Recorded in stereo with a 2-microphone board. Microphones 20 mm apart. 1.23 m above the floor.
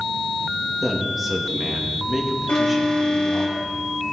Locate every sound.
0.8 s a man speaking: 5° right (ahead or behind), 2 m
2.5 s an alarm: 75° left (ahead or behind), 4 m